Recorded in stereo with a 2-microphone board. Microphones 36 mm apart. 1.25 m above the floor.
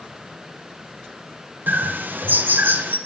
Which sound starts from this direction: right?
A bird, at 1.7 s.